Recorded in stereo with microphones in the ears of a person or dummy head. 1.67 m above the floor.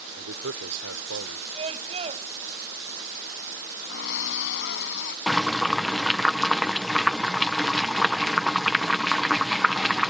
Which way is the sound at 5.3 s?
Centre (ahead or behind).